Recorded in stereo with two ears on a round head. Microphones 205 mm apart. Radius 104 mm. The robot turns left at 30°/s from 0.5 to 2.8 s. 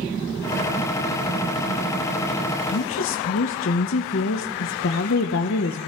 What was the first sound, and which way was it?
A woman speaking, 65° left (ahead or behind).